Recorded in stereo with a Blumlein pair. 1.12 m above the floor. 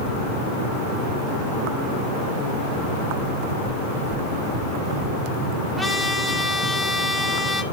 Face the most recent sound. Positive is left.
turn(degrees=5)